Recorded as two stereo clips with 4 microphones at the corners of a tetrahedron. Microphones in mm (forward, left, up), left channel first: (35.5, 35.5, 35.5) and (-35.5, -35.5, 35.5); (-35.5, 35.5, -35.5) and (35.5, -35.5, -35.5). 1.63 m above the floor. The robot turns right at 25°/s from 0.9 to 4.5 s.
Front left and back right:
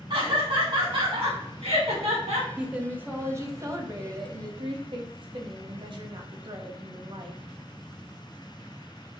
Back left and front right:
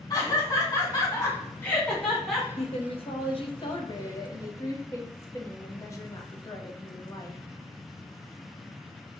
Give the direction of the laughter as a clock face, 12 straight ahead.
6 o'clock.